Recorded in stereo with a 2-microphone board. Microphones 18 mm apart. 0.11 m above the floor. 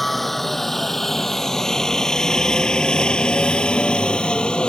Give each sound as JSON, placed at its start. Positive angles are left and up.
{"t": 0.0, "sound": "a helicopter", "side_deg": 10}